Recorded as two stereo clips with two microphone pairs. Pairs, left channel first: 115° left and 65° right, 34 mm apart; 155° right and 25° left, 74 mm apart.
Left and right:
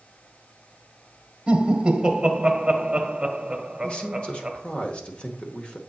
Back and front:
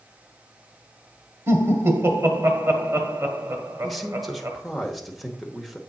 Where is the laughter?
Straight ahead, 1.0 m.